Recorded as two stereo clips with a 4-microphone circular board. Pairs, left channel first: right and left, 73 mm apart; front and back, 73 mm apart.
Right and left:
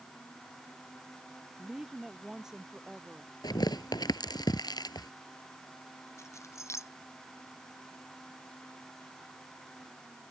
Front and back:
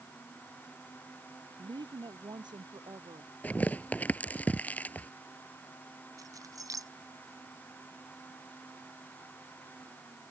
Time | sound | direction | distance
1.6 | a woman speaking | 170° left | ?
3.4 | tearing paper | 70° right | ?
6.2 | keys jangling | 140° right | ?